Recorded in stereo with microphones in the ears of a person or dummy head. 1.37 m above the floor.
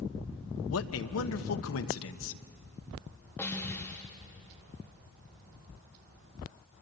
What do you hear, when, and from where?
0.7 s a man speaking: 80° left, 1.1 m
3.4 s a snare drum: 10° left (ahead or behind), 2.5 m